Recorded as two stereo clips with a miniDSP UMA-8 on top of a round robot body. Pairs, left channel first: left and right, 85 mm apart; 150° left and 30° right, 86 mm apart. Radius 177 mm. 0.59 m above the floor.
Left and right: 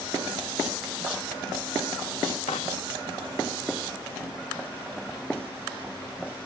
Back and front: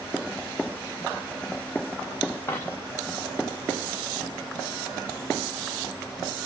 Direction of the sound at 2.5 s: 90° left.